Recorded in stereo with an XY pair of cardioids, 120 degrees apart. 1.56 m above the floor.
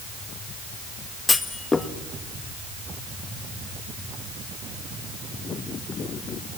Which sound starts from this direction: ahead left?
A clunk, at 1.3 s.